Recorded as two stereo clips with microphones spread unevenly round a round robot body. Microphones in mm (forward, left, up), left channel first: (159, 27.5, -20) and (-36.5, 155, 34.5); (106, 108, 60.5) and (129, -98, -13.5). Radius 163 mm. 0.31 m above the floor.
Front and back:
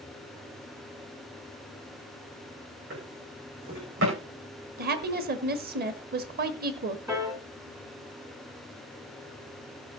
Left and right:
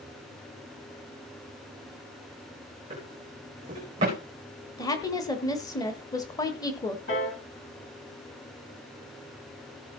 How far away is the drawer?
About 5 m.